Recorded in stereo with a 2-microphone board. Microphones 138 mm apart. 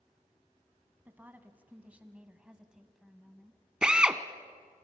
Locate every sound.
1.1 s a woman speaking: 15° right (ahead or behind), 1.3 m; by 3.6 s centre (ahead or behind), 1.1 m
3.8 s a drill: 5° right (ahead or behind), 0.8 m